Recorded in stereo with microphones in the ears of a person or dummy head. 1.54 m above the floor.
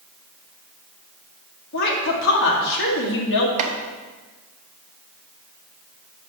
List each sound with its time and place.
1.7 s a woman speaking: 65° left (ahead or behind), 1.9 m
3.6 s chopping: 40° right (ahead or behind), 1.1 m